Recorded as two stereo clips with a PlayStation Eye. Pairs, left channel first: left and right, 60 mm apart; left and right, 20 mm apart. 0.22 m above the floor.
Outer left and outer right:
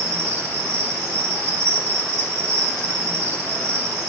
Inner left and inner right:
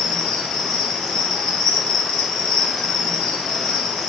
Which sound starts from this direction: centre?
An insect, at 0.0 s.